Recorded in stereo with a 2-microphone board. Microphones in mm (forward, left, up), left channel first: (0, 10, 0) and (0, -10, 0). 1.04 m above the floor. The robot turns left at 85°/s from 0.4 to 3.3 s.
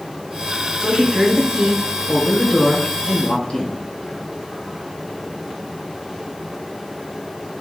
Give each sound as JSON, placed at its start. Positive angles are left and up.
{"t": 0.8, "sound": "a woman speaking", "azimuth_deg": -50, "distance_m": 4.0}